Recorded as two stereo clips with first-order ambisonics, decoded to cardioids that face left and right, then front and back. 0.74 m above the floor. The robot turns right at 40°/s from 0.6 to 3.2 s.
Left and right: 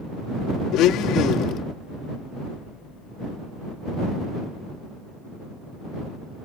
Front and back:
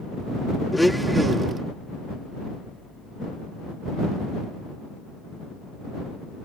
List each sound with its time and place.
0.7 s a blender: 85° left; by 1.6 s 120° left